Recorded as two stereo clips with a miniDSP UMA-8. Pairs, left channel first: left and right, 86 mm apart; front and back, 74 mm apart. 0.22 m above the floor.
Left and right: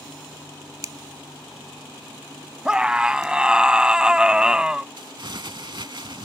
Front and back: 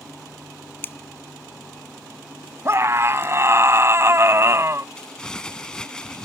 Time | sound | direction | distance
0.8 | a finger snap | 55° right | ?
2.6 | a scream | 165° right | ?
5.0 | crumpling | 80° right | ?